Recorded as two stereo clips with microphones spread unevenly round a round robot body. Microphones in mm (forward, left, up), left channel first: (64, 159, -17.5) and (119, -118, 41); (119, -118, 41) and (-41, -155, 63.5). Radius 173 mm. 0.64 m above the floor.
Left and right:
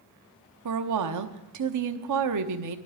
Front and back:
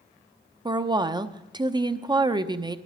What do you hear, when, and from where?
0.7 s a woman speaking: 100° right, 0.9 m